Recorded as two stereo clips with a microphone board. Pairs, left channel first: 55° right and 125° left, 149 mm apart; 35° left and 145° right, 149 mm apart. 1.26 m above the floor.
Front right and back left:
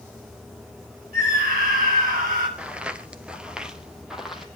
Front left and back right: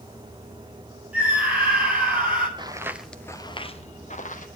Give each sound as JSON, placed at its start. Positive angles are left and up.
{"t": 1.1, "sound": "a scream", "azimuth_deg": 135, "distance_m": 10.0}
{"t": 2.6, "sound": "footsteps", "azimuth_deg": -160, "distance_m": 1.4}